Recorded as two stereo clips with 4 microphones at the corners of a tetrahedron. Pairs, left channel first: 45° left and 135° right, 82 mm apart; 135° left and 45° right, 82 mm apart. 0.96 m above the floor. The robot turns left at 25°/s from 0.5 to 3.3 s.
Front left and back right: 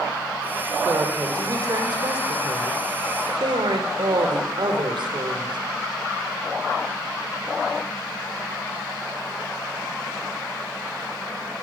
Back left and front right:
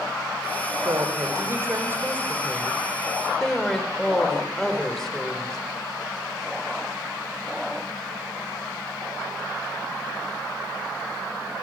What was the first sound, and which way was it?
A woman speaking, 80° right.